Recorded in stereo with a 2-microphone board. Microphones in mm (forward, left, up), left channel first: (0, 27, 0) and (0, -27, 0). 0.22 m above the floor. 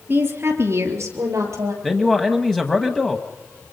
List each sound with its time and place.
0.1 s a woman speaking: 40° right (ahead or behind), 3.5 m; by 1.7 s 65° right (ahead or behind), 5 m
1.8 s a man speaking: 10° left (ahead or behind), 1.1 m